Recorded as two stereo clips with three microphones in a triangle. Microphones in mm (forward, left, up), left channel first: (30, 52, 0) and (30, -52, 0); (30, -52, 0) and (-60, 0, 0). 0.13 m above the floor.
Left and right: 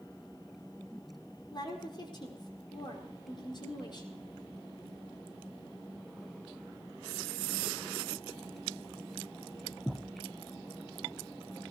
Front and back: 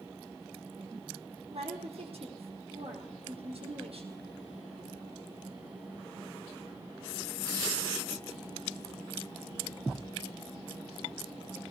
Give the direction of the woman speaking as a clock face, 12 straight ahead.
8 o'clock.